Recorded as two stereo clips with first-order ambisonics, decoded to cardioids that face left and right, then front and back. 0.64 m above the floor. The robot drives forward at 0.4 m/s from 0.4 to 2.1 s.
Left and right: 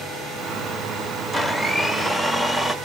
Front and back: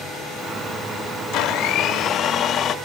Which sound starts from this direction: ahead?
A blender, at 1.3 s.